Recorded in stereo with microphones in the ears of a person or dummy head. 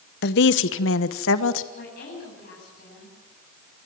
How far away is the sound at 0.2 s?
About 1.0 m.